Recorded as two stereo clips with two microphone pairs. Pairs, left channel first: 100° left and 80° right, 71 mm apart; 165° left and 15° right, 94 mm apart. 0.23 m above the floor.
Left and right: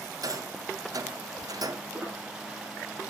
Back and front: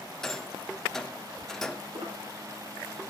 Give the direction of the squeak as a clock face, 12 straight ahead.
12 o'clock.